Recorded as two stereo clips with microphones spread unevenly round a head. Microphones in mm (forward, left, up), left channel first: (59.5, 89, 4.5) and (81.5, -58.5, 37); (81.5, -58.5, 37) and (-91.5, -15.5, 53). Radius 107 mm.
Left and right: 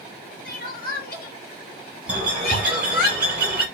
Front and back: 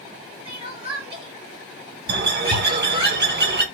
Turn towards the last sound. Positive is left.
turn(degrees=-170)